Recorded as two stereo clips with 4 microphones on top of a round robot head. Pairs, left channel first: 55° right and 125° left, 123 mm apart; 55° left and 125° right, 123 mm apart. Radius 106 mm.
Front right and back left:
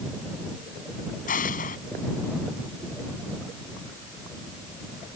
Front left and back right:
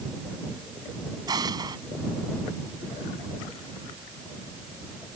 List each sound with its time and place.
1.3 s an explosion: 65° right